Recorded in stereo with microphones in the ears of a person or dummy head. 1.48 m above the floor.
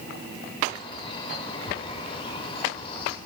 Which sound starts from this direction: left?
A bird, at 0.7 s.